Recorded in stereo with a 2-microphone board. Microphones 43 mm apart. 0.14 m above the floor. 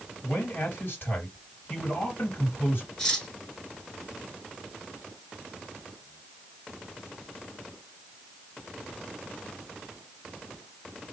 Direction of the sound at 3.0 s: 15° left (ahead or behind).